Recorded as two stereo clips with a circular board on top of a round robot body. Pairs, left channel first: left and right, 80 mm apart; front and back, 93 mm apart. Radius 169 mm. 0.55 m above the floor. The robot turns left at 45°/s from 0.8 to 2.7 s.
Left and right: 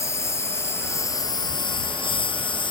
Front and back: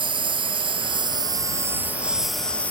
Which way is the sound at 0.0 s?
145° left.